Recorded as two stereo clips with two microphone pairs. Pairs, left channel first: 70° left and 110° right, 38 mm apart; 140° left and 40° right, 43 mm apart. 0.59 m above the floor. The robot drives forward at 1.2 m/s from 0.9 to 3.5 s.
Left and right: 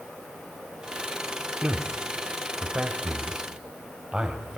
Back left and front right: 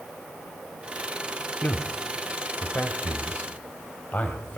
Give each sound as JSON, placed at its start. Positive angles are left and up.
{"t": 1.6, "sound": "a man speaking", "azimuth_deg": -170, "distance_m": 1.7}